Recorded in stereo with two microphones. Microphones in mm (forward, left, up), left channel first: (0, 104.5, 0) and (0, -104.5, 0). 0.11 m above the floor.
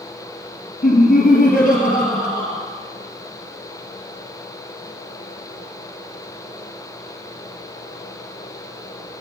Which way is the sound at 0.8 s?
35° left (ahead or behind).